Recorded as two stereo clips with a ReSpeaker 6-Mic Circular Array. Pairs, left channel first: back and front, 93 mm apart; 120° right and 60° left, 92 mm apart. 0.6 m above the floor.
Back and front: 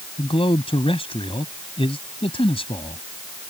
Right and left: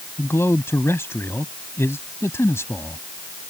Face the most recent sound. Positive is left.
turn(degrees=180)